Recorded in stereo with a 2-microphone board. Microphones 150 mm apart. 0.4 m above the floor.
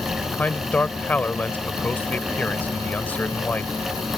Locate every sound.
0.3 s a man speaking: 10° left (ahead or behind)